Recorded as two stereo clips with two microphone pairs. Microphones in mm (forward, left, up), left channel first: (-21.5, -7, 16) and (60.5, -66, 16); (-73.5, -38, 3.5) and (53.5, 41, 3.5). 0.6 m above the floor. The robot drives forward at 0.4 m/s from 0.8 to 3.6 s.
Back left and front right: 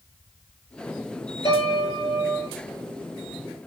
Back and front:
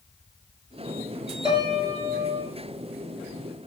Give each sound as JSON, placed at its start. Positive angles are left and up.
{"t": 1.4, "sound": "a piano", "azimuth_deg": 95, "distance_m": 5.5}